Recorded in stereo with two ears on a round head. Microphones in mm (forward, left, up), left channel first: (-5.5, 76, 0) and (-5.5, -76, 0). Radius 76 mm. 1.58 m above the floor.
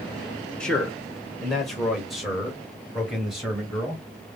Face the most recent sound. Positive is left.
turn(degrees=-5)  # may be behind; listen again after turning